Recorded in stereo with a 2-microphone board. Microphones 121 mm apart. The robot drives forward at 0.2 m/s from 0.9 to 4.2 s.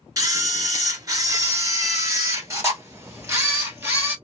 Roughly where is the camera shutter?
Right.